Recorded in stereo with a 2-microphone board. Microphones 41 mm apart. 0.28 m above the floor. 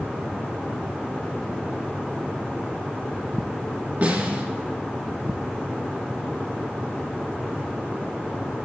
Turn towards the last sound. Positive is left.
turn(degrees=-35)  # may be behind; listen again after turning